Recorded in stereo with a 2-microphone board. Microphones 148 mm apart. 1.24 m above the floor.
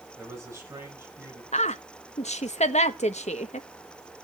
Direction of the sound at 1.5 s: 50° left (ahead or behind).